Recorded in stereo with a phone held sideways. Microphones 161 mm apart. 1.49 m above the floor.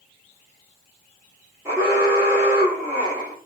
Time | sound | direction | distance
1.6 | an alarm | 15° right (ahead or behind) | 2 m